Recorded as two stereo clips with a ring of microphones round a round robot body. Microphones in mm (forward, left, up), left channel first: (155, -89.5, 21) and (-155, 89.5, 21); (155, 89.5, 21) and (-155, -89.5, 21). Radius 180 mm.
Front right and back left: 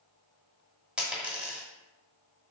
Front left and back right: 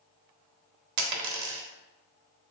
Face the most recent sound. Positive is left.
turn(degrees=-125)